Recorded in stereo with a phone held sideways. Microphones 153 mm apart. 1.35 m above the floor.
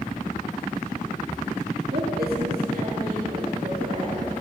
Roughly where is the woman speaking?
Right.